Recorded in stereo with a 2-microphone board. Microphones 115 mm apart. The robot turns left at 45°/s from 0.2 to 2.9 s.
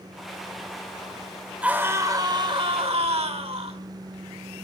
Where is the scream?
10° right, 2 m; by 3.8 s 70° right, 2 m.